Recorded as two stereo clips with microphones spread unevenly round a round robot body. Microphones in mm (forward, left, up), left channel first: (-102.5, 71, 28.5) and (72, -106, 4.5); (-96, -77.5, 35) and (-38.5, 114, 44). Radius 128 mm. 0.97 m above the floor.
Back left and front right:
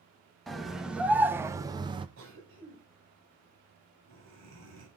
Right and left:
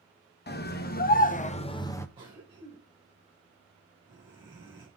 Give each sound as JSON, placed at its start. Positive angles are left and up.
{"t": 0.5, "sound": "a scream", "azimuth_deg": -130, "distance_m": 1.0}
{"t": 2.2, "sound": "a cough", "azimuth_deg": 0, "distance_m": 4.0}